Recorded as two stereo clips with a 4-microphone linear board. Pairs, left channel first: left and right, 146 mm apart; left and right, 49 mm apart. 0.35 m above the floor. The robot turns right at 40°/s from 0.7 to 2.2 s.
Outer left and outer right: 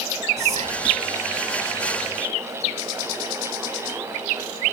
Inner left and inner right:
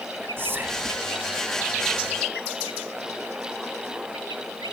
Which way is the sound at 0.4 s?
55° right (ahead or behind).